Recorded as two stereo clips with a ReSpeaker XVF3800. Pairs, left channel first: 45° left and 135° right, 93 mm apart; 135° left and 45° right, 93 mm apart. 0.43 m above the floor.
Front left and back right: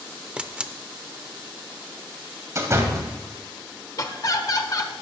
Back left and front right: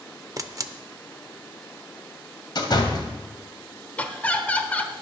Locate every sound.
0.4 s a camera shutter: 65° right, 0.6 m
2.5 s a door slam: 170° left, 1.6 m
4.0 s laughter: 65° left, 1.2 m